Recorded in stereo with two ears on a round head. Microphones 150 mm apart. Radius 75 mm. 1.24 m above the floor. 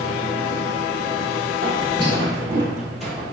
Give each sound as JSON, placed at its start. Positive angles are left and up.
{"t": 1.6, "sound": "footsteps", "side_deg": -40, "distance_m": 1.8}